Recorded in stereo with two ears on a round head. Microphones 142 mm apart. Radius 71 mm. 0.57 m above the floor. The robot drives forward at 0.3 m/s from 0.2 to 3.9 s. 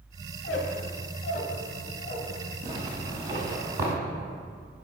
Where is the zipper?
25° right (ahead or behind), 1.5 m; by 3.9 s 20° right (ahead or behind), 1.9 m.